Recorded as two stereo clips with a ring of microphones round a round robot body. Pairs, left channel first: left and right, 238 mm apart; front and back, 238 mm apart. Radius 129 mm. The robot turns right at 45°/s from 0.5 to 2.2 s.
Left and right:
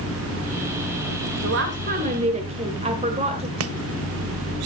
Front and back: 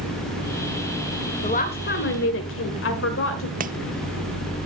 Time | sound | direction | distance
1.4 | a woman speaking | 60° right | 1.8 m
3.6 | chopping | 120° right | 0.7 m